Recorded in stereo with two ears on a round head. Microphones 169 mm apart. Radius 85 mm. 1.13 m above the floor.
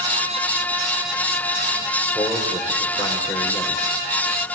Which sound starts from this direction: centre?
A man speaking, at 2.1 s.